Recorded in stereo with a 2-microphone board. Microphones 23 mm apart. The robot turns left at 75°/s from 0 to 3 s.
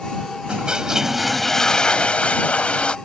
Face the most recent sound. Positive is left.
turn(degrees=45)